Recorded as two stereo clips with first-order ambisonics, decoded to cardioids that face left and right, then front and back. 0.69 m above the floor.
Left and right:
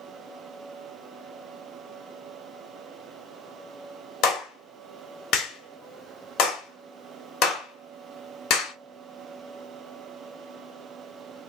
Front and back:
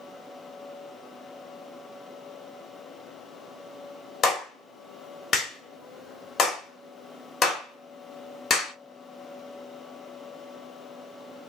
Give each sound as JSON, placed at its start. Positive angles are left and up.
{"t": 4.2, "sound": "a clap", "azimuth_deg": 60, "distance_m": 1.5}